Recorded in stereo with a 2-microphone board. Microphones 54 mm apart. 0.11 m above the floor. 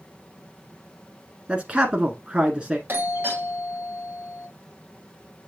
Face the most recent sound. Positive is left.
turn(degrees=-35)  # may be behind; listen again after turning